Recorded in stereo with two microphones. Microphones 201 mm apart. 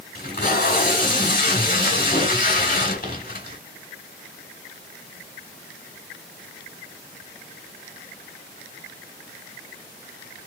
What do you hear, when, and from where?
0.1 s tape being pulled: 45° left (ahead or behind), 1.4 m